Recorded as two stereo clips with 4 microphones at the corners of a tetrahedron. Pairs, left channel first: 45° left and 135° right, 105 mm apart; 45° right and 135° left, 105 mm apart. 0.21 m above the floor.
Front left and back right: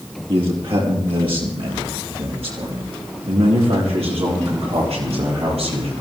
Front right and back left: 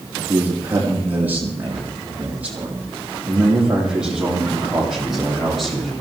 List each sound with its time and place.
0.3 s a man speaking: 160° right, 6.5 m; by 5.9 s 135° right, 7.5 m